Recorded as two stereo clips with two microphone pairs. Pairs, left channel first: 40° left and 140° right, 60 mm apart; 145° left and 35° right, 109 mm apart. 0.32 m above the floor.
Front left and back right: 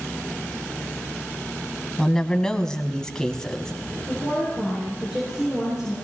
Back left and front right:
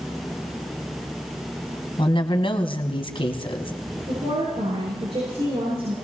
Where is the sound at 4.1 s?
65° right, 7 m.